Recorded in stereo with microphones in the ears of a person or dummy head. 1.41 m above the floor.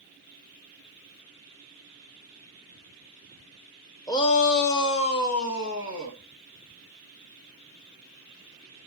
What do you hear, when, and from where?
4.1 s a shout: 20° left (ahead or behind), 0.9 m; by 6.2 s 75° left (ahead or behind), 3 m